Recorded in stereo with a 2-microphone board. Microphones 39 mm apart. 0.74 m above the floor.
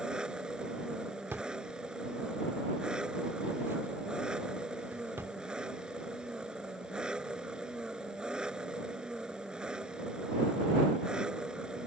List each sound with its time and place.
0.0 s an engine running: 20° right (ahead or behind)
1.3 s a drawer: 80° right